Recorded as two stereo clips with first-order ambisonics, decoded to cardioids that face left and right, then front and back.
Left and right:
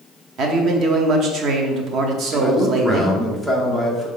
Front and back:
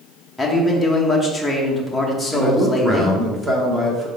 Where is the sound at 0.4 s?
80° right, 0.9 m.